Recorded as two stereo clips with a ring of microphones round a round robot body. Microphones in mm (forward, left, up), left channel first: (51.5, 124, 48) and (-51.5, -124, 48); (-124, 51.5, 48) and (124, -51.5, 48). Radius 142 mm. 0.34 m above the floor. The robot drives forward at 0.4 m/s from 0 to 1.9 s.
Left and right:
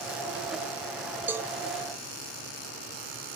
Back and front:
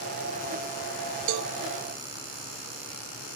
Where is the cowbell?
30° right, 0.6 m; by 1.5 s 35° right, 0.5 m.